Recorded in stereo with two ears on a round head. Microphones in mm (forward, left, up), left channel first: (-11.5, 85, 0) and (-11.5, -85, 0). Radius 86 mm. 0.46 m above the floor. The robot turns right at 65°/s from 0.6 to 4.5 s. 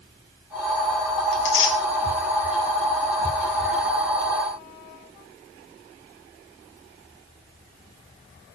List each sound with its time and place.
1.3 s tearing paper: 60° left (ahead or behind), 4 m; by 1.8 s 75° left (ahead or behind), 4 m